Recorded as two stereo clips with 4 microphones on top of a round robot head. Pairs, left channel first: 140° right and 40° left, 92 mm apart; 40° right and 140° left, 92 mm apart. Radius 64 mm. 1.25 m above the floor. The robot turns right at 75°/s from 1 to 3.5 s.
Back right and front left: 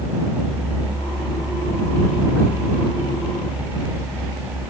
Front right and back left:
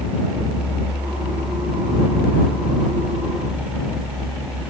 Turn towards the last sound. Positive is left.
No sound to turn to.